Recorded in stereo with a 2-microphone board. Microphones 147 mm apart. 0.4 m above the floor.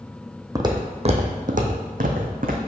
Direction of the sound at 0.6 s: 25° right (ahead or behind).